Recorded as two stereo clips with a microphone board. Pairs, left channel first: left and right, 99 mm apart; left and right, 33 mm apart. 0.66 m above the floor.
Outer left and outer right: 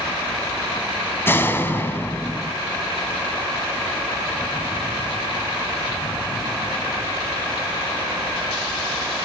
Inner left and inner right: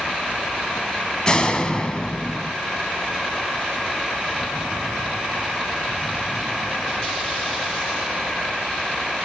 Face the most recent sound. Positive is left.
turn(degrees=20)  # may be behind; listen again after turning